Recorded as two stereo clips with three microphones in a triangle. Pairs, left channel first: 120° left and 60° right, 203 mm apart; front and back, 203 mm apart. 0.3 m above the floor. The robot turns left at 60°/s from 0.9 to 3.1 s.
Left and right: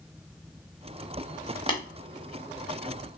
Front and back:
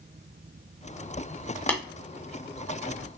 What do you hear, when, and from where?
1.7 s tapping: 75° left, 1.1 m; by 1.8 s 65° left, 1.1 m